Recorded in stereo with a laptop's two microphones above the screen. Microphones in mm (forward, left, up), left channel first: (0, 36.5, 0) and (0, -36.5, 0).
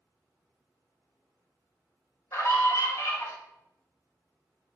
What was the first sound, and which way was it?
A scream, 40° left (ahead or behind).